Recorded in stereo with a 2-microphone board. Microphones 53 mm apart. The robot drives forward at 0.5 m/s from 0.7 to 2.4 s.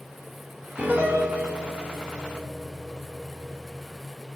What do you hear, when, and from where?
0.8 s a piano: 20° right (ahead or behind), 6 m; by 4.0 s 25° right (ahead or behind), 5.5 m